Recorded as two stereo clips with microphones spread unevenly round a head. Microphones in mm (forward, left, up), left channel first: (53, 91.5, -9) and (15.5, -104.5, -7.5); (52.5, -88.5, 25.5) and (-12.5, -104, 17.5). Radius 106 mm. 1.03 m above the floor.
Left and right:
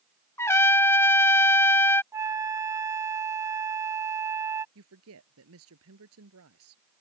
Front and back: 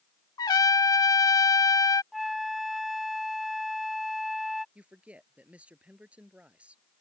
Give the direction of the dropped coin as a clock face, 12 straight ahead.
No dropped coin in this recording.